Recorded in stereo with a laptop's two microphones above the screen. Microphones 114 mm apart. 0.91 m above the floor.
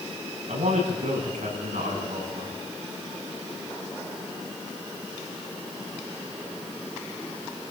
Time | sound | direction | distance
0.5 | a man speaking | 80° right | 8 m